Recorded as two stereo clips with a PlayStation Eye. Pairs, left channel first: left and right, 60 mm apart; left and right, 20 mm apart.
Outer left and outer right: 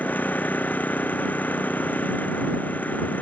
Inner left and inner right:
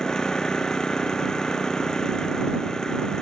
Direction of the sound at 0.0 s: 30° left (ahead or behind).